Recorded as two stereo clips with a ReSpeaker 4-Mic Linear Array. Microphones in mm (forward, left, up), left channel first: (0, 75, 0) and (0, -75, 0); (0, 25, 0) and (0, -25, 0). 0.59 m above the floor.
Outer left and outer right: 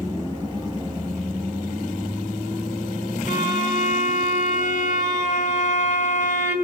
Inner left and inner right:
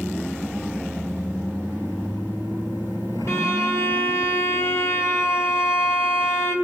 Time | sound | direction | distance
3.3 | a violin | 55° left (ahead or behind) | 2 m